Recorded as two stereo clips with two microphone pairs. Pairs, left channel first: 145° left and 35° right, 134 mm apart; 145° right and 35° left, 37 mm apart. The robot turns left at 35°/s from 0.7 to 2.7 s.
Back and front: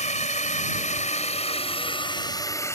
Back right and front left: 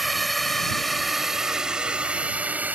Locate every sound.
0.0 s a drone: 125° left; by 2.8 s 80° left